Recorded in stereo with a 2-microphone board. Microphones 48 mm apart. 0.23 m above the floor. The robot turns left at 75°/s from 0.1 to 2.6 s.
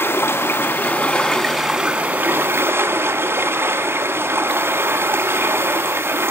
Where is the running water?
110° left, 1.1 m; by 6.3 s 75° right, 1.1 m.